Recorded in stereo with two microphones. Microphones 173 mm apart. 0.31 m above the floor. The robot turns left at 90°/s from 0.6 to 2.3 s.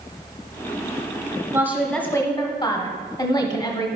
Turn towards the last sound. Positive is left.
turn(degrees=140)